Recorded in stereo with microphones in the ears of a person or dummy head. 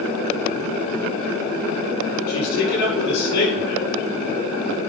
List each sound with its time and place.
2.3 s a man speaking: 60° left (ahead or behind), 5.5 m